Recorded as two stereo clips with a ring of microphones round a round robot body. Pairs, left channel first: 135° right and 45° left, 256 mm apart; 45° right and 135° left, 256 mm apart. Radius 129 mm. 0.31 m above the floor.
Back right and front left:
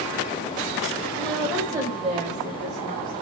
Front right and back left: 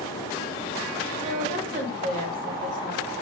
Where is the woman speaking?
150° left, 1.1 m; by 3.2 s 75° left, 1.6 m.